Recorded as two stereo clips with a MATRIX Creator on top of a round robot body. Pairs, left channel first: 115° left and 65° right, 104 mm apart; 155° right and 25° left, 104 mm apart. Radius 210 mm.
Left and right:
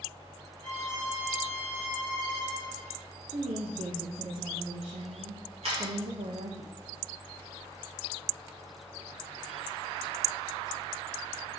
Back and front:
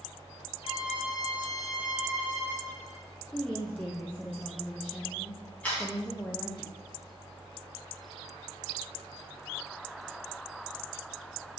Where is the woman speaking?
80° right, 0.9 m.